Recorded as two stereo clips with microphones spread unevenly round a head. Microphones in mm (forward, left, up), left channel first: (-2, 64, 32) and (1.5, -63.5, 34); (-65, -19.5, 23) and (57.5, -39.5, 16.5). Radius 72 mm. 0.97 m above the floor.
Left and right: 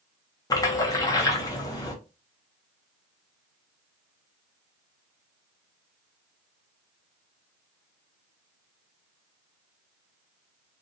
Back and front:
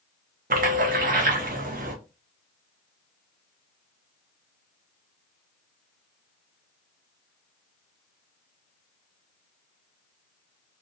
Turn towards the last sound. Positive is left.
turn(degrees=25)